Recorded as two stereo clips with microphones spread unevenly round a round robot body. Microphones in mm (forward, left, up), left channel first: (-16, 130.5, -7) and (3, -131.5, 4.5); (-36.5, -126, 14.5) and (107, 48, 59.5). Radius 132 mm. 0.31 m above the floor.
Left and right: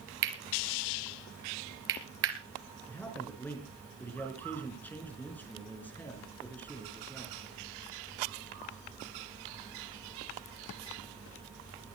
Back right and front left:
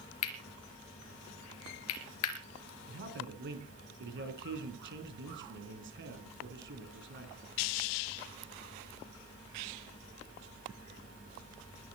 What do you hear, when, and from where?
0.2 s cutlery clinking: 130° right, 3.5 m
2.9 s a man speaking: 10° left, 4 m